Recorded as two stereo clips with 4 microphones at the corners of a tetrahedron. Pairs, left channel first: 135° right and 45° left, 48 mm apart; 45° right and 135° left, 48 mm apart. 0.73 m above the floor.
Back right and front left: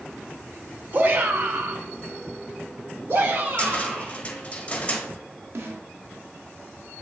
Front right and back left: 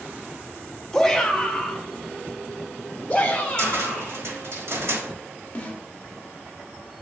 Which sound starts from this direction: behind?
A cupboard door, at 3.6 s.